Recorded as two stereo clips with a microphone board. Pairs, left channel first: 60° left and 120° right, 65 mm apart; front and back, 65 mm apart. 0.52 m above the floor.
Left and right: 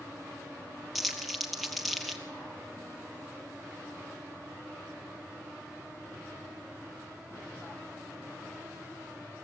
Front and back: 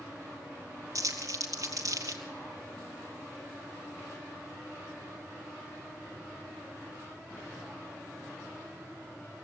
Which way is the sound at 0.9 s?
150° left.